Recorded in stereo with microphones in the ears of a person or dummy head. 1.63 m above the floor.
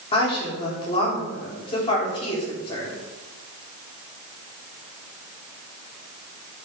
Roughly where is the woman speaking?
Left.